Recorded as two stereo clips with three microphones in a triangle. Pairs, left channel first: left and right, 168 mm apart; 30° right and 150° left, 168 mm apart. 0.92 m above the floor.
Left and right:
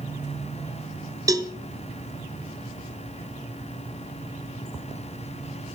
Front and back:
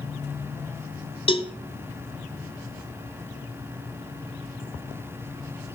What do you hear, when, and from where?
1.3 s a cowbell: 40° right, 0.5 m